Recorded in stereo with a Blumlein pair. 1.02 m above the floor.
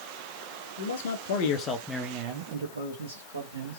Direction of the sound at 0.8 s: 65° left.